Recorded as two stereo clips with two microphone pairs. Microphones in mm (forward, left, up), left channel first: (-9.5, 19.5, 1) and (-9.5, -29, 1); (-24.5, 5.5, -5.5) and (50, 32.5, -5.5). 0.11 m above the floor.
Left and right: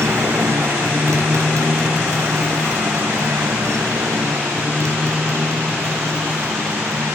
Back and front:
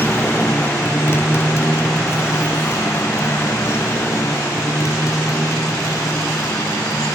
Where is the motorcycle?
95° right; by 7.2 s 110° right.